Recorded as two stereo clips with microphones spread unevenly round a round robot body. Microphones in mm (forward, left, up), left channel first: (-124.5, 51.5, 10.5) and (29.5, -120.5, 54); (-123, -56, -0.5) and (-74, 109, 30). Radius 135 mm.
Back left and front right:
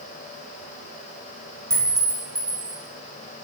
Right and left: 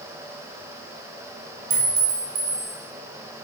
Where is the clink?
35° left, 1.2 m.